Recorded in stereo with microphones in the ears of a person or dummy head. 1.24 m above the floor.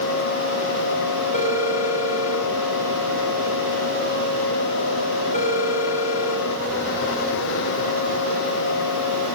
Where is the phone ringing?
40° left (ahead or behind), 5 m.